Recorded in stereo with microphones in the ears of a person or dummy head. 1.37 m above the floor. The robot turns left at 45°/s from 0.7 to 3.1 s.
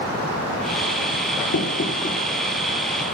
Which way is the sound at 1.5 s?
60° left (ahead or behind).